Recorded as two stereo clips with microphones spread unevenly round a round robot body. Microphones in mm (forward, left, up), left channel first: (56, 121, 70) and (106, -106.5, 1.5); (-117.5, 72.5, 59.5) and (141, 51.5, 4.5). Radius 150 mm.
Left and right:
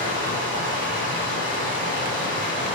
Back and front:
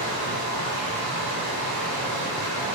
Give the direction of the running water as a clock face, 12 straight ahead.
1 o'clock.